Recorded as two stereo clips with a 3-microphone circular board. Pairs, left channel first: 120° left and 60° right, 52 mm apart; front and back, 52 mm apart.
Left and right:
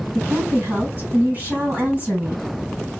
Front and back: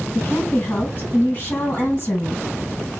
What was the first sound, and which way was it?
A woman speaking, 40° right.